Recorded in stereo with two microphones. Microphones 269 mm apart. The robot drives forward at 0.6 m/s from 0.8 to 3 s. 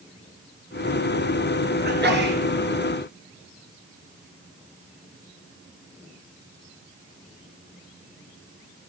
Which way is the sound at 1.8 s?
40° right (ahead or behind).